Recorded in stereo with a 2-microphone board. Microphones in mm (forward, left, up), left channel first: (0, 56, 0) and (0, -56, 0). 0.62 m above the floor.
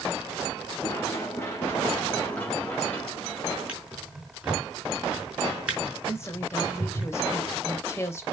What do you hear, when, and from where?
0.8 s running footsteps: 25° left (ahead or behind), 3.5 m; by 3.6 s 10° left (ahead or behind), 5 m
3.7 s a drawer: 10° right (ahead or behind), 5 m
6.0 s a woman speaking: 25° left (ahead or behind), 3 m